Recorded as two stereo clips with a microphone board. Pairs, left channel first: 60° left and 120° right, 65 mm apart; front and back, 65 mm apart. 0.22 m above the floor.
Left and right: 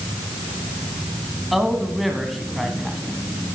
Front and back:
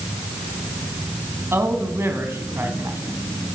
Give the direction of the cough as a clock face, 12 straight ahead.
I don't hear a cough.